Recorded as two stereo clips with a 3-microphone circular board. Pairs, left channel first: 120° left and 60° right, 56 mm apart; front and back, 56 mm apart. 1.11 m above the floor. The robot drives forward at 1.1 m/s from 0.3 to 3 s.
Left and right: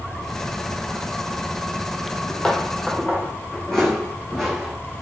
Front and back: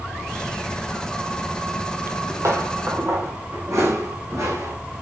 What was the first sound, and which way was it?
Footsteps, 155° right.